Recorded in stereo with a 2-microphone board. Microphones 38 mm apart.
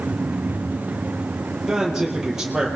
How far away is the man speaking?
About 6.5 m.